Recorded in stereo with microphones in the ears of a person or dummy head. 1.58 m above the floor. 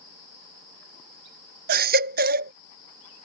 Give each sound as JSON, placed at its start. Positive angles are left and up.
{"t": 1.7, "sound": "a baby crying", "side_deg": -40}